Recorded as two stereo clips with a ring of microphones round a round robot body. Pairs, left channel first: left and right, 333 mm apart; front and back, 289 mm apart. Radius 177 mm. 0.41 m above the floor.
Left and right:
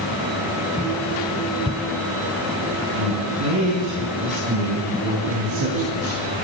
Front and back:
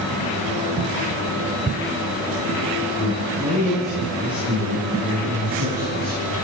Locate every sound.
3.0 s a man speaking: 80° right, 6 m; by 6.2 s 115° right, 7.5 m